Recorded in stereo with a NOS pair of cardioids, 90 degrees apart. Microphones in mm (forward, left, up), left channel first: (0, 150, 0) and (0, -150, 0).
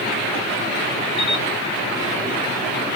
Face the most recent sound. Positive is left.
turn(degrees=65)